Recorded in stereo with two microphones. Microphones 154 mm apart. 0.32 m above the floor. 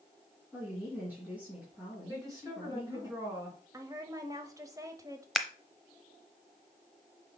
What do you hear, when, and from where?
0.5 s a woman speaking: 10° right (ahead or behind), 3.5 m
2.1 s a woman speaking: 25° right (ahead or behind), 3.5 m
3.7 s a woman speaking: 20° right (ahead or behind), 1.0 m
5.3 s scissors: centre (ahead or behind), 0.7 m